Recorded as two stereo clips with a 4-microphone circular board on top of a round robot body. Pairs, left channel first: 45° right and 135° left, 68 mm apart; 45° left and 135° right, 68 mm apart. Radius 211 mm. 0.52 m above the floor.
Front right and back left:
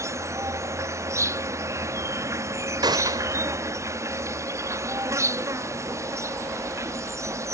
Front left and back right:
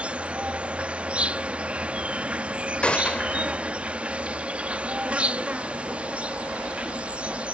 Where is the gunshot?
120° left.